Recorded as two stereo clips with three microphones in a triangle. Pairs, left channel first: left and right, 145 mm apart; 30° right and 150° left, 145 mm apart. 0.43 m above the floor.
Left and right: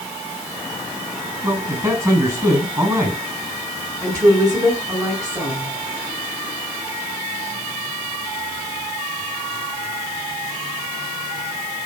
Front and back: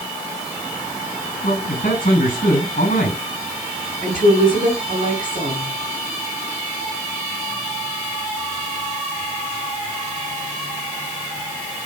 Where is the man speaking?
20° right, 5 m.